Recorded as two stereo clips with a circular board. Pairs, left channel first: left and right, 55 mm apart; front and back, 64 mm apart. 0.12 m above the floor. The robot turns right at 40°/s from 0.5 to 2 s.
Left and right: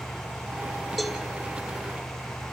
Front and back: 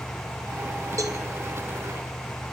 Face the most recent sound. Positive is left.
turn(degrees=-135)